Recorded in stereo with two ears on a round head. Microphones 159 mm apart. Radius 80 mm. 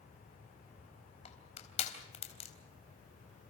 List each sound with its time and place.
1.2 s crushing: 40° left (ahead or behind), 3.5 m